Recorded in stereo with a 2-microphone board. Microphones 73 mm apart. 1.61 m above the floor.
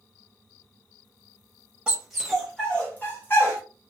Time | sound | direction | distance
1.9 | a dog barking | 15° right (ahead or behind) | 1.0 m